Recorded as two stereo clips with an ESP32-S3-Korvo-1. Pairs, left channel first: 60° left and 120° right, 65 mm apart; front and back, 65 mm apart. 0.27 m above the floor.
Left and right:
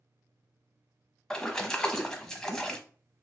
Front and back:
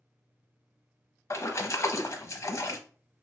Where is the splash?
15° right, 0.7 m.